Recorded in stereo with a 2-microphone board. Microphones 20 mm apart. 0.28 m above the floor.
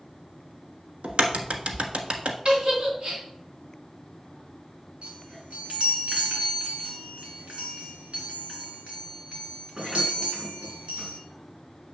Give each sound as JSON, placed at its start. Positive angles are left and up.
{"t": 1.0, "sound": "a crack", "side_deg": -70, "distance_m": 1.2}
{"t": 2.5, "sound": "a giggle", "side_deg": -55, "distance_m": 2.5}
{"t": 5.0, "sound": "a chime", "side_deg": -65, "distance_m": 3.5}